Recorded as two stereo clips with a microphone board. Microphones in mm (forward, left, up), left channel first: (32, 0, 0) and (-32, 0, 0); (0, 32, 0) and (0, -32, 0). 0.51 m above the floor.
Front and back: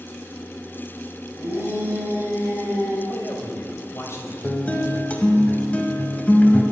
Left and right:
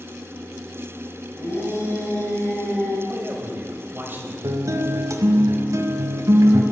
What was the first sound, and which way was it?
A shout, 130° left.